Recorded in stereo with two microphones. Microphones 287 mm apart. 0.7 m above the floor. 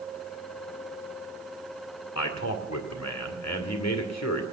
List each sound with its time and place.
2.1 s a man speaking: 65° left (ahead or behind), 2 m